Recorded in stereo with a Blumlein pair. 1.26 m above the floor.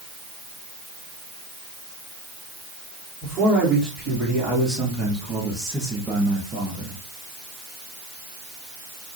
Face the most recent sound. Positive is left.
turn(degrees=-20)